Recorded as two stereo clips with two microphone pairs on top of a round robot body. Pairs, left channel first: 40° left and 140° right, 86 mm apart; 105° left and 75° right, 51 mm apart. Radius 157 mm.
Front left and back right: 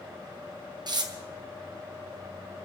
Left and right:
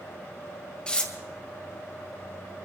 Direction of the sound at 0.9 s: Straight behind.